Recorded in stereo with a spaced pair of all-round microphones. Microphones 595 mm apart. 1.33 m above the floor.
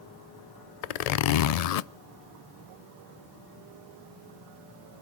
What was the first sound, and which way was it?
A zipper, 75° left (ahead or behind).